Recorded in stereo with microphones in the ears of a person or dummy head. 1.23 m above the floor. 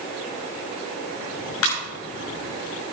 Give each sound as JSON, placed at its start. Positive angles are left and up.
{"t": 1.6, "sound": "a ringtone", "side_deg": 80, "distance_m": 6.0}